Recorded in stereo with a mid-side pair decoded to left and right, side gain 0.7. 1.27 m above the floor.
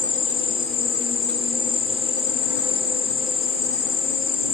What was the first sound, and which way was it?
An insect, 55° left.